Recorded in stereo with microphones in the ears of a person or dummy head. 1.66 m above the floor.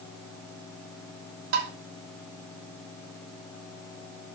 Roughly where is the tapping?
Right.